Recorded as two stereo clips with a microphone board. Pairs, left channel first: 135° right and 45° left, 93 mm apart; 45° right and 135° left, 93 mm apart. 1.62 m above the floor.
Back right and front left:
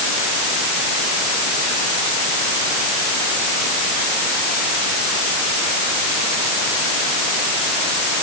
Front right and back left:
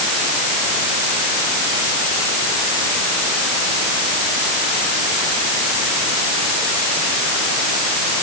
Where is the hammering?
No hammering in this recording.